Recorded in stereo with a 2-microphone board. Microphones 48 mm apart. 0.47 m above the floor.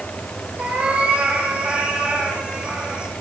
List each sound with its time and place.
0.6 s a cat meowing: 30° right (ahead or behind), 6 m; by 3.1 s 20° right (ahead or behind), 7.5 m